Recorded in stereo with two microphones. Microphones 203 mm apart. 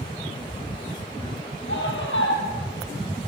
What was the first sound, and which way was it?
A scream, 70° left (ahead or behind).